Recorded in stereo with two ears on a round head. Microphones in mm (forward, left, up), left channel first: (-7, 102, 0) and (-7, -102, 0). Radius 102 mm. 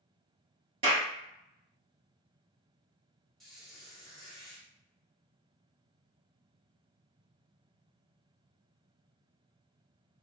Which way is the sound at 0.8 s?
25° right (ahead or behind).